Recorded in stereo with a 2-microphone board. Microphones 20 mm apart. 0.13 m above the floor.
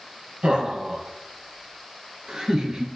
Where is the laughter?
50° right (ahead or behind), 3.5 m; by 2.9 s 25° right (ahead or behind), 2.5 m.